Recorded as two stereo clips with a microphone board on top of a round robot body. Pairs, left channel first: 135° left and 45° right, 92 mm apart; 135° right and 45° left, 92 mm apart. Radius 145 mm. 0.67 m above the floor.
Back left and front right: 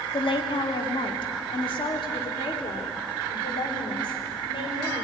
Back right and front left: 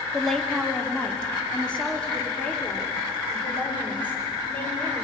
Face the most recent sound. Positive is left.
turn(degrees=155)